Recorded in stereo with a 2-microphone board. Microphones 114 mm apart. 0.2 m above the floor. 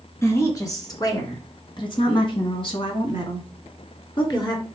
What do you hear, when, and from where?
0.2 s a woman speaking: 25° left (ahead or behind), 3 m; by 4.6 s 40° left (ahead or behind), 3 m